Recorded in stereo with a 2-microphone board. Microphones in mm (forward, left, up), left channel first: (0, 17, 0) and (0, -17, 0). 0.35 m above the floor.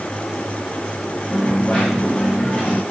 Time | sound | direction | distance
1.3 | a dropped coin | 40° left (ahead or behind) | 8 m